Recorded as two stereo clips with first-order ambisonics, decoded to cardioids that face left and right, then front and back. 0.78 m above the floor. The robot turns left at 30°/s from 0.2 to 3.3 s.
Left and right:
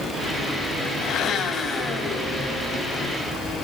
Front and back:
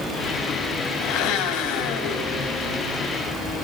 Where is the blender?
35° left, 3.5 m; by 2.7 s 15° right, 3.5 m.